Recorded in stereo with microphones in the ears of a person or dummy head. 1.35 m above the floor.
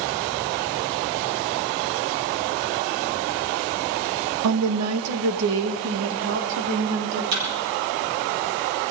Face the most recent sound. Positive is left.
turn(degrees=-65)  # may be behind; listen again after turning